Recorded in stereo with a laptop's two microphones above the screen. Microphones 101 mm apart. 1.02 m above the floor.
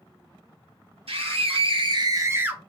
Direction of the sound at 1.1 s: 75° right (ahead or behind).